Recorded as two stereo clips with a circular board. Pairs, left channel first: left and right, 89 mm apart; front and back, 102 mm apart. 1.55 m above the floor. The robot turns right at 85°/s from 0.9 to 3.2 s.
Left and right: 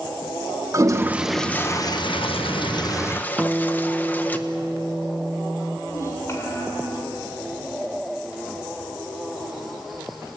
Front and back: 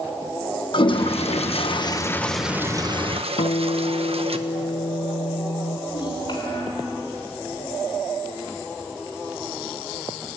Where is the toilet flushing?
35° right, 1.3 m; by 4.4 s 160° left, 1.3 m.